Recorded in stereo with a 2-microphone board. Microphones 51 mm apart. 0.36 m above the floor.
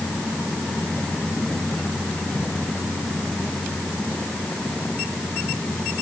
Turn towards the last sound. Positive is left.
No sound to turn to.